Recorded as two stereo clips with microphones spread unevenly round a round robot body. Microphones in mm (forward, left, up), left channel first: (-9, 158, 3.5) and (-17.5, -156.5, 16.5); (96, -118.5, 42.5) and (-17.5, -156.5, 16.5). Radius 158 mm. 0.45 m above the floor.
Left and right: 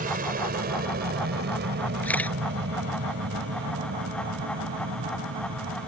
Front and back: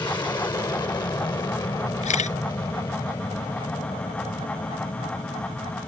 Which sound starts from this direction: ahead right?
An aircraft, at 0.0 s.